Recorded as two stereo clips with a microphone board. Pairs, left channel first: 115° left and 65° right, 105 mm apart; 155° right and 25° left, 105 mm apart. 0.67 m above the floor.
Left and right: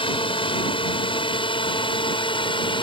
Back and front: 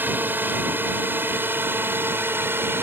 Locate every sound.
0.0 s a drone: 90° left